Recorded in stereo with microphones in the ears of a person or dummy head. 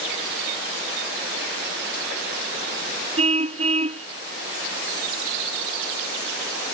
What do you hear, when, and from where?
3.2 s a car horn: 40° right (ahead or behind)